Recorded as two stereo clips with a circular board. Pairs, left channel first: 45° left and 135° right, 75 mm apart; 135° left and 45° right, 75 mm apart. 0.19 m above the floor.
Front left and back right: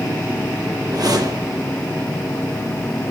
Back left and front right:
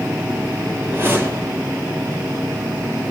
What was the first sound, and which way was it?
A whoosh, 105° right.